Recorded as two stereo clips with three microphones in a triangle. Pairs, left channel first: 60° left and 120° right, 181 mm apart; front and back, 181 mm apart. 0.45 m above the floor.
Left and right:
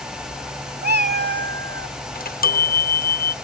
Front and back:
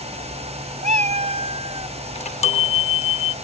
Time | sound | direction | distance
0.8 | a cat meowing | 140° right | ?
2.1 | a chime | 45° left | ?